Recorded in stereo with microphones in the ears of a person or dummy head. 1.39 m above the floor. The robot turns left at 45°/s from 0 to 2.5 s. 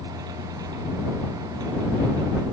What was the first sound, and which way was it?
Only background noise.